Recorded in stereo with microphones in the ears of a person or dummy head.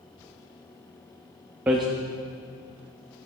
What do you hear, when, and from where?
1.7 s hammering: 10° right (ahead or behind), 0.7 m